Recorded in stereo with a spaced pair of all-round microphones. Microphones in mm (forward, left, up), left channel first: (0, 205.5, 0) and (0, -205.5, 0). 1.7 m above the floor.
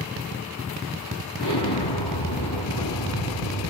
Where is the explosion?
80° left, 3.5 m.